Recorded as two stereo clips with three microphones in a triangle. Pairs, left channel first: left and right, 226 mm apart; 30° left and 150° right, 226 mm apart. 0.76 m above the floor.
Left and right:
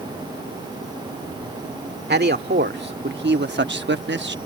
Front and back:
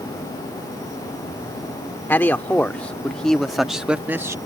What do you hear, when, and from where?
2.1 s a man speaking: 50° right; by 4.3 s 75° right